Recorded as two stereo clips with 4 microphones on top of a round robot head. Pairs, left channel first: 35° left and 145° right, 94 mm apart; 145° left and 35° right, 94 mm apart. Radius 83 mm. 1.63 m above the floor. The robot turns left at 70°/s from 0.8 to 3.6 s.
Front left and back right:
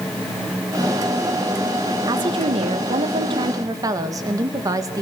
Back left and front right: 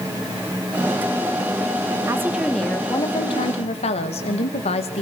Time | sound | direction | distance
2.1 | a woman speaking | 95° right | 2.5 m